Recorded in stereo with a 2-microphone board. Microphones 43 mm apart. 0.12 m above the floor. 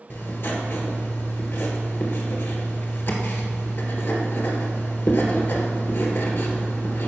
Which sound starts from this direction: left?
Writing, at 0.1 s.